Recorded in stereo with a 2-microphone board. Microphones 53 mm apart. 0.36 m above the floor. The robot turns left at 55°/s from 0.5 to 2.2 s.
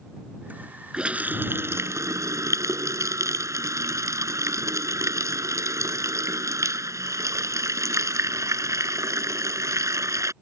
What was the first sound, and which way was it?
A running tap, 15° right.